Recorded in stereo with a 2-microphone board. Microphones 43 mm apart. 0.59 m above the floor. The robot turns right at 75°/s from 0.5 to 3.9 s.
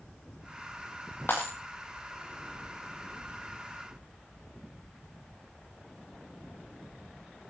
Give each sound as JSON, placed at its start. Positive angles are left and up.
{"t": 1.3, "sound": "breaking glass", "side_deg": 50, "distance_m": 10.0}